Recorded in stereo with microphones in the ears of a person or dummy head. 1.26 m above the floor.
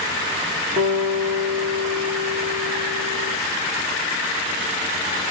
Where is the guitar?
40° right (ahead or behind), 0.7 m.